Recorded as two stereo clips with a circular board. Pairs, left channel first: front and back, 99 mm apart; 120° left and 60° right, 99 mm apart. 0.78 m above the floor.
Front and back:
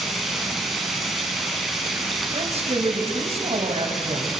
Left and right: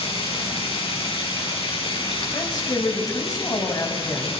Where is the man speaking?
170° left, 4.5 m.